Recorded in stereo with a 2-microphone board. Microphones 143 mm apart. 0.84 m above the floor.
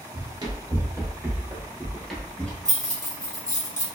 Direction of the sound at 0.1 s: 30° right (ahead or behind).